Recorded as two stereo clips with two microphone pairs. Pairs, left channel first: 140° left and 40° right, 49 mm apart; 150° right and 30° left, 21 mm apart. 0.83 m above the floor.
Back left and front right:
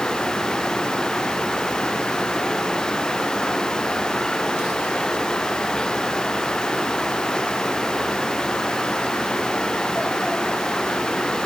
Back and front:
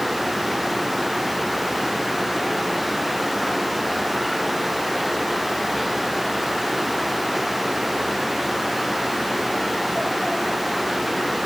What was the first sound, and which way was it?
Only background noise.